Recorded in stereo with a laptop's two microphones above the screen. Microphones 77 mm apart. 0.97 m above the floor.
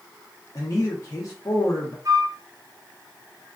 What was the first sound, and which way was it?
A man speaking, 45° left (ahead or behind).